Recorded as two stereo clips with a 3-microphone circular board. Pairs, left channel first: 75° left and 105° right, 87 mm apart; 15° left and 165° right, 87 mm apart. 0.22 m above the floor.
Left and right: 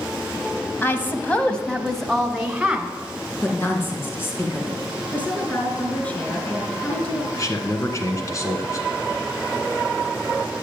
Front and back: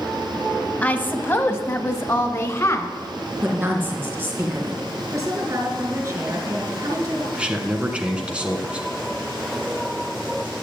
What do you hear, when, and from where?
0.8 s a woman speaking: 60° left, 1.0 m; by 2.9 s 25° right, 1.4 m
3.4 s a woman speaking: 135° left, 3 m
5.1 s a woman speaking: 145° left, 4 m
7.3 s a man speaking: 120° left, 1.8 m